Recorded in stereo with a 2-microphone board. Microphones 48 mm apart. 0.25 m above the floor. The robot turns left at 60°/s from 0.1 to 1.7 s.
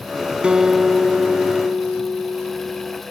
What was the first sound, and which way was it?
A guitar, 155° right.